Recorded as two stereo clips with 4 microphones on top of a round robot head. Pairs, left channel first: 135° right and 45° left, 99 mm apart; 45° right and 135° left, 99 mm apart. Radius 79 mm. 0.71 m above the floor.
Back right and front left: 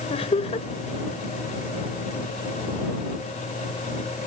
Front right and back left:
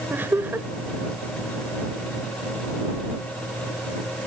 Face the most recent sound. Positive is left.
turn(degrees=-155)